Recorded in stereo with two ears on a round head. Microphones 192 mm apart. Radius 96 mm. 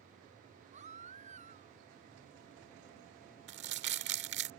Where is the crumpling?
55° right (ahead or behind).